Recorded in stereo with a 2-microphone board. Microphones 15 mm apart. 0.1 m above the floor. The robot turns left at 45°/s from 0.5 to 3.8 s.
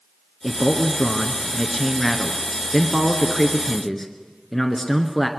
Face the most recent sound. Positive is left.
turn(degrees=25)  # may be behind; listen again after turning